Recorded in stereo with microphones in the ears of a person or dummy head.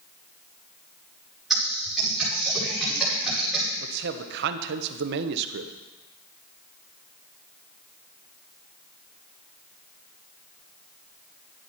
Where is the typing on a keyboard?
Centre (ahead or behind), 5.5 m.